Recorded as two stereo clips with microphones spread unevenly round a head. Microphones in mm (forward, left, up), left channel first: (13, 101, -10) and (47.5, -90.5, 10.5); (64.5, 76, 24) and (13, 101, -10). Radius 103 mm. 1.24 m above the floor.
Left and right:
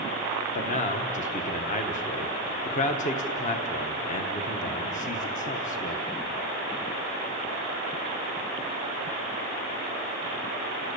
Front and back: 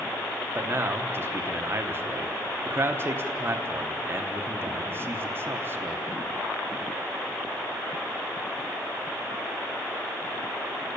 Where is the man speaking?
150° left, 1.0 m.